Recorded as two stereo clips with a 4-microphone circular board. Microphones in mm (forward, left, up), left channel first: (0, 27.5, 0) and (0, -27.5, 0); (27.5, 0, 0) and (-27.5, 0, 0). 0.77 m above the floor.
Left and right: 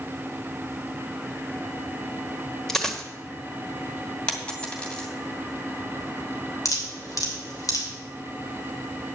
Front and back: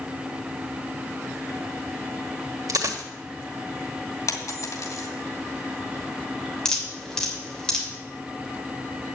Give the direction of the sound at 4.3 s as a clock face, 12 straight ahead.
11 o'clock.